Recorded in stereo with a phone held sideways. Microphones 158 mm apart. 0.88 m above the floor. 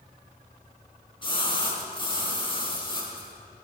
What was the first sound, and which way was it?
A splash, 30° left (ahead or behind).